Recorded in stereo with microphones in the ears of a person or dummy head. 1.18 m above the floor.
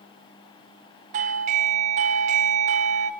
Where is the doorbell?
35° right (ahead or behind), 0.6 m.